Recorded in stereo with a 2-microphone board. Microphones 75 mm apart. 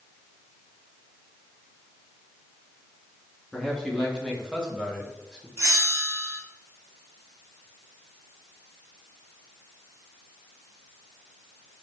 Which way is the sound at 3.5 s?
5° right (ahead or behind).